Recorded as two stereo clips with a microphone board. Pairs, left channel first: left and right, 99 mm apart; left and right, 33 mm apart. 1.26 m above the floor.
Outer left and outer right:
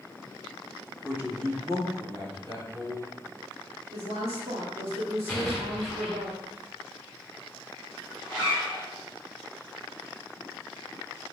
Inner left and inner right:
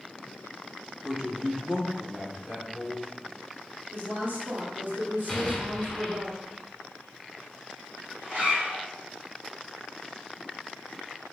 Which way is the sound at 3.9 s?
85° right.